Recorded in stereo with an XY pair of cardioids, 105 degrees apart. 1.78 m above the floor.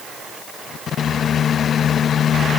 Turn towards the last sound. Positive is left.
No sound to turn to.